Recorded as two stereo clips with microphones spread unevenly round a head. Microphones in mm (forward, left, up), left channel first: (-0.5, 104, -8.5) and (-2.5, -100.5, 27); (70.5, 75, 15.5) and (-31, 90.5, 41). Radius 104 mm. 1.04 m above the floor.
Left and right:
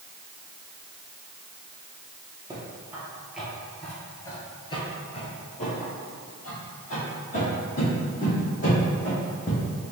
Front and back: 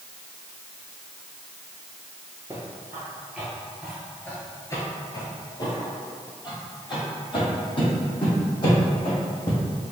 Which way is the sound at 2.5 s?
150° right.